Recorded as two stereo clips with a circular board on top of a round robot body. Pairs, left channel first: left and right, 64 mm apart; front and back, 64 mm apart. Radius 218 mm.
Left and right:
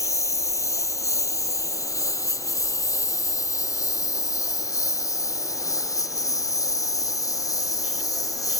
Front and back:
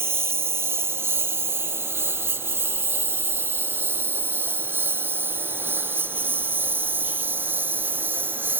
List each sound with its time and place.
0.0 s a lawn mower: 130° left; by 8.6 s 120° left